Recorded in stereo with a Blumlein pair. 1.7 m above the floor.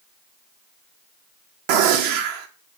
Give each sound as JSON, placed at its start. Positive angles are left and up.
{"t": 1.7, "sound": "a gunshot", "azimuth_deg": -45, "distance_m": 1.3}